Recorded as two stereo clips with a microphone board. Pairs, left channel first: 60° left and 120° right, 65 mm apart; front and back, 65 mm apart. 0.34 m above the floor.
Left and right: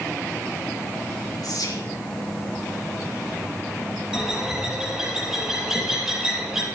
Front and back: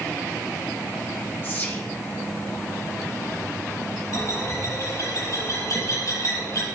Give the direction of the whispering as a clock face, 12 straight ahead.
10 o'clock.